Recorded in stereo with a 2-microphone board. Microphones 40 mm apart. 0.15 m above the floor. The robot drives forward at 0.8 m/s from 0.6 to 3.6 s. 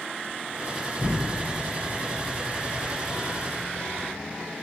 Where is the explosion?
25° right (ahead or behind), 1.1 m; by 4.3 s 10° right (ahead or behind), 2 m.